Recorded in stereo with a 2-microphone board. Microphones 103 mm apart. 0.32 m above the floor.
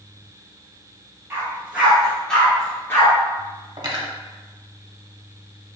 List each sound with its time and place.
1.3 s a dog barking: 20° right (ahead or behind), 1.9 m; by 3.1 s 30° left (ahead or behind), 1.8 m
3.8 s cutlery clinking: 40° right (ahead or behind), 0.8 m